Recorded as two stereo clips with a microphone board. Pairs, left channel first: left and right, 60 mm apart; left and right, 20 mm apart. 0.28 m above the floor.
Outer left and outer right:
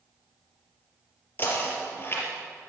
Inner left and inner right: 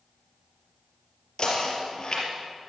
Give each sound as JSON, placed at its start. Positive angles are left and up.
{"t": 1.4, "sound": "knocking", "side_deg": 35, "distance_m": 3.5}